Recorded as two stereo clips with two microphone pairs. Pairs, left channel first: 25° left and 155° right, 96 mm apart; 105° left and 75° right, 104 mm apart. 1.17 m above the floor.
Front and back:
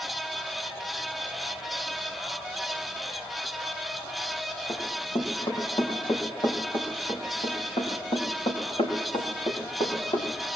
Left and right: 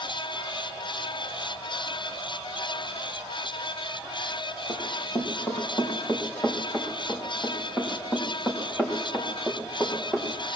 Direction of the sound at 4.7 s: 50° left.